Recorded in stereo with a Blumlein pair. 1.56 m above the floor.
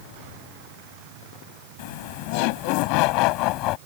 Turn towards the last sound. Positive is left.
turn(degrees=40)